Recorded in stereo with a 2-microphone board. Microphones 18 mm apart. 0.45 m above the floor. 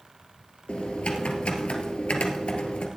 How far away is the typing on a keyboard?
About 2 m.